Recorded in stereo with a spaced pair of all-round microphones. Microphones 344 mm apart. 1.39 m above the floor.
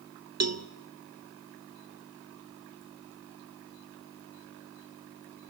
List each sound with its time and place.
0.4 s a cowbell: 50° right (ahead or behind), 0.6 m